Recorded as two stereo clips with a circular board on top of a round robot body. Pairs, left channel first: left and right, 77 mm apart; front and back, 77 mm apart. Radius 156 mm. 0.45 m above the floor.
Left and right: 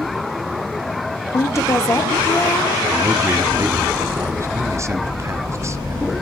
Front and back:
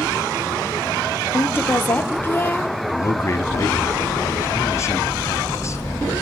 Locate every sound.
1.3 s a woman speaking: 55° left, 1.1 m
2.9 s a man speaking: 45° right, 1.3 m